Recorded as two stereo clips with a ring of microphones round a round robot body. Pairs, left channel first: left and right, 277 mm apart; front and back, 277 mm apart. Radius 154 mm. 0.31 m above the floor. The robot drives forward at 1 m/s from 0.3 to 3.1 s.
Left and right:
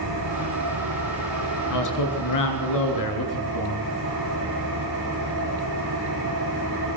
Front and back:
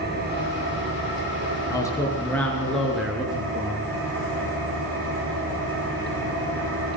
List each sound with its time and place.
0.0 s an engine running: 125° right, 8.5 m; by 7.0 s 140° right, 10 m
1.7 s a man speaking: 80° left, 6 m; by 3.9 s 90° left, 6 m